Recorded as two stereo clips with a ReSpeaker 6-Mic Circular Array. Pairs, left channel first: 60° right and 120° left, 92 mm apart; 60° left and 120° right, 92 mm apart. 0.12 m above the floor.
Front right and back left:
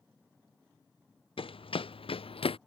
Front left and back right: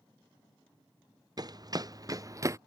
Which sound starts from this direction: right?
Running footsteps, at 1.4 s.